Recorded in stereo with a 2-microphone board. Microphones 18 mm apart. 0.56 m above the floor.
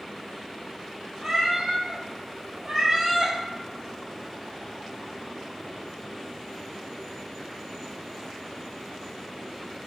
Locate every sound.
1.2 s a cat meowing: 55° right (ahead or behind), 1.1 m